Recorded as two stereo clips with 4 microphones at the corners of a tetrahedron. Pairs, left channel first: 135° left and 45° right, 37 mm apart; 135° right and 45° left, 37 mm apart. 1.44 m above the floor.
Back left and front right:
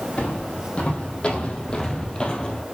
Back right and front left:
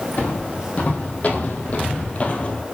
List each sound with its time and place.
0.2 s footsteps: 175° right, 3.5 m; by 2.6 s 165° right, 1.8 m